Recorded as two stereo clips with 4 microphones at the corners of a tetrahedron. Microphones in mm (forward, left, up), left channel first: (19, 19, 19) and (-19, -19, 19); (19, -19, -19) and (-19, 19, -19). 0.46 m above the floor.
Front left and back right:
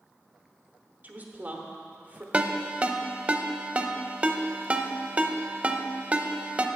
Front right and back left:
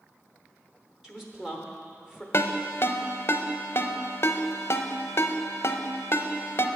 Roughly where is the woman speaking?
Behind right.